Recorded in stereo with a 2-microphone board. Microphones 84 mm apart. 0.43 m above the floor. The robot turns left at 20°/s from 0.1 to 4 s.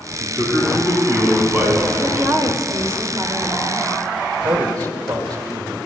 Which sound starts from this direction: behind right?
A man speaking, at 0.2 s.